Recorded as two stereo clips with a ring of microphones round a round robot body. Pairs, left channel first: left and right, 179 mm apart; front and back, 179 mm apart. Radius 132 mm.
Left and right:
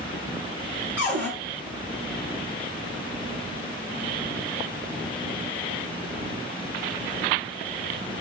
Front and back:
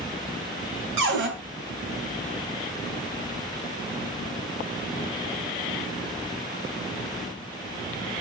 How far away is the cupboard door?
About 3 m.